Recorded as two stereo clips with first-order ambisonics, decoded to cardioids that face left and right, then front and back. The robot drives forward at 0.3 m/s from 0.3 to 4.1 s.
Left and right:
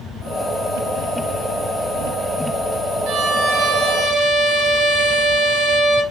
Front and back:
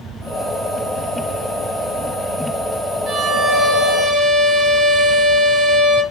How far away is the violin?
About 0.9 m.